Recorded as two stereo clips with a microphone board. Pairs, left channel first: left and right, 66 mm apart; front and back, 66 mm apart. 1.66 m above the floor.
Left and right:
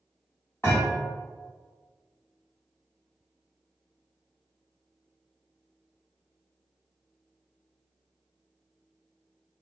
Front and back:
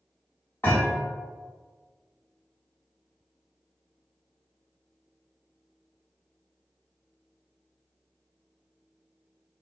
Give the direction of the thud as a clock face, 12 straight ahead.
10 o'clock.